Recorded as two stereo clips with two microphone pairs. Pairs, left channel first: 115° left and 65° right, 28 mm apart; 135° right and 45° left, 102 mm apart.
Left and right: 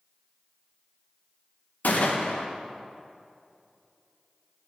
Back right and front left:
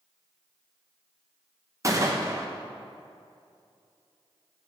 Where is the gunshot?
100° left, 1.0 m.